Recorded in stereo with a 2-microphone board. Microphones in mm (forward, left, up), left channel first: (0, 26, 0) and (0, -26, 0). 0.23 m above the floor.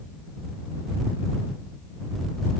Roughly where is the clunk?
I don't hear a clunk.